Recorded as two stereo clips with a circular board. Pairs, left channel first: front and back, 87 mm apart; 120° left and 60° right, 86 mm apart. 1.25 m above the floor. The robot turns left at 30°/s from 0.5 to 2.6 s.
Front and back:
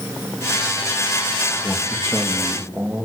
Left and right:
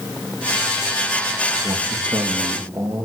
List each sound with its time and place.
1.6 s a man speaking: 80° right, 2 m; by 3.0 s 110° right, 2 m